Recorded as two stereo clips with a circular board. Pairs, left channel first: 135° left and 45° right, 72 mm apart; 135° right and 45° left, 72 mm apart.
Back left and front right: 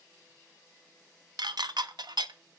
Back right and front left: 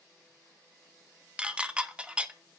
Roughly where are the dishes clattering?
Ahead right.